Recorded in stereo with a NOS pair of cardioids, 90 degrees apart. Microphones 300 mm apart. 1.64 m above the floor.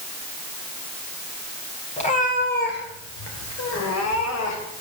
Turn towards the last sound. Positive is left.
turn(degrees=75)